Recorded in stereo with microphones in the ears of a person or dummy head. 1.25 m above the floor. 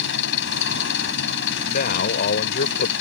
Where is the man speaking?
50° left (ahead or behind).